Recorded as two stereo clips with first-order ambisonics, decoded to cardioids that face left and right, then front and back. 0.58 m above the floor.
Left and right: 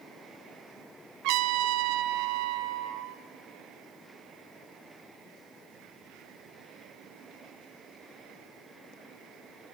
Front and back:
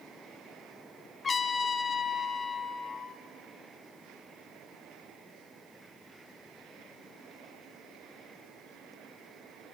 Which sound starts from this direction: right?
A trumpet, at 1.2 s.